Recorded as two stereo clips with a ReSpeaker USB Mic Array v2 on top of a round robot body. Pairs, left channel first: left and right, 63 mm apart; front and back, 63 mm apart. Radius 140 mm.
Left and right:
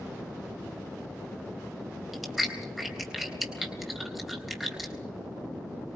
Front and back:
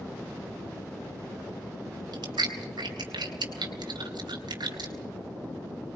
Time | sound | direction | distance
2.1 | chewing | 175° right | 4 m